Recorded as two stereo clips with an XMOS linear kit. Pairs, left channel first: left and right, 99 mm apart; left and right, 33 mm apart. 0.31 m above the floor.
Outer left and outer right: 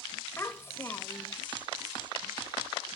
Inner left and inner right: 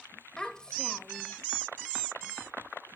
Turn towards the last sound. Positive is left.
turn(degrees=25)  # may be behind; listen again after turning